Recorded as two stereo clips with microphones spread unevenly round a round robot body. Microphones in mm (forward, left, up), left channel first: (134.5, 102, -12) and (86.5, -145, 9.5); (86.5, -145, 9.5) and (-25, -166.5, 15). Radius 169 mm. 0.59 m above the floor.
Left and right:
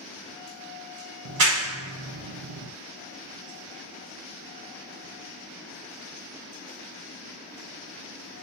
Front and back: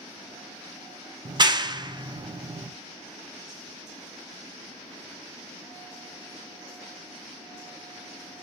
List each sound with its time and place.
1.2 s a clap: 120° right, 0.6 m